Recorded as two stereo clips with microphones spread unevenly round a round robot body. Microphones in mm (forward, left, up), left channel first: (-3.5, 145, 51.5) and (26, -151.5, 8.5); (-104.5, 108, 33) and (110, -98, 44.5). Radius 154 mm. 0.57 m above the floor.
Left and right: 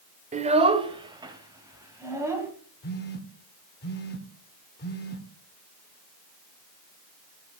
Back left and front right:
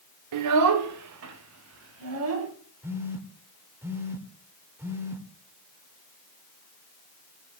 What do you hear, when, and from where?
0.3 s a child speaking: 20° right, 1.0 m; by 2.5 s 5° right, 2.5 m
2.8 s a phone buzzing: 40° left, 1.3 m